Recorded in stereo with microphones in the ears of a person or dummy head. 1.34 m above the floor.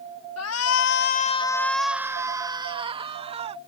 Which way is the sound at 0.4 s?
85° left.